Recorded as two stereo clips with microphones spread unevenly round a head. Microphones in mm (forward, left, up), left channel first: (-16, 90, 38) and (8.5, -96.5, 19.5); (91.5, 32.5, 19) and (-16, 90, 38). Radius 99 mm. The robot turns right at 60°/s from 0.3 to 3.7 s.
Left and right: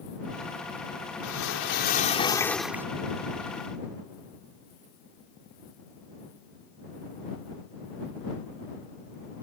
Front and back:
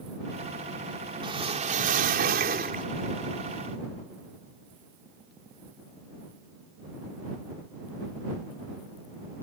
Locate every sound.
1.2 s a whoosh: 105° left; by 2.9 s 160° right